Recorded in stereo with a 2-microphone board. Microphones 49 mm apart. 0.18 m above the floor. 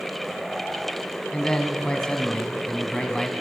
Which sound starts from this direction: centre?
A man speaking, at 1.3 s.